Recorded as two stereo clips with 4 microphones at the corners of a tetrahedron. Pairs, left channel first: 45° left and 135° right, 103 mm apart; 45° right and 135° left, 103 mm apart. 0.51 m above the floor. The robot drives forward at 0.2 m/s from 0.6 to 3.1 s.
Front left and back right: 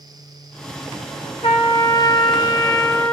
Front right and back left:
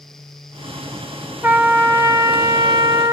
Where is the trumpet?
70° left, 0.6 m; by 3.1 s 105° left, 0.6 m.